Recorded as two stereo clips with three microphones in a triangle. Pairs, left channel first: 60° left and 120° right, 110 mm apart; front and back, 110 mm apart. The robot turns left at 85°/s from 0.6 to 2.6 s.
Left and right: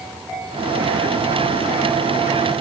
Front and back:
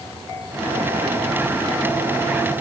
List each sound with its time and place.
Only background noise.